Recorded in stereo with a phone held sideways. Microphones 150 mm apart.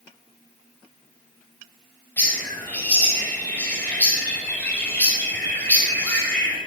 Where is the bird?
10° left (ahead or behind), 5 m.